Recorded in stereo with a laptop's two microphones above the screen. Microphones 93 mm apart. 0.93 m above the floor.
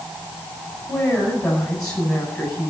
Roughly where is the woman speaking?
Centre.